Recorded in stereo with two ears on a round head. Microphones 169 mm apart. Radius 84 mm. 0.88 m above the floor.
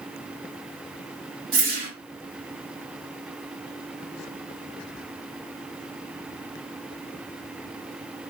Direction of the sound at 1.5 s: 55° right (ahead or behind).